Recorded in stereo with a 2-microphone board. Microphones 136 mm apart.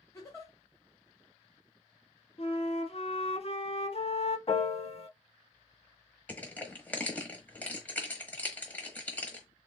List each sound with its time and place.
0.1 s a giggle: 25° left (ahead or behind), 1.3 m
2.4 s a flute: 50° left (ahead or behind), 0.5 m
4.5 s a piano: 50° left (ahead or behind), 0.5 m
6.3 s crushing: 10° left (ahead or behind), 1.1 m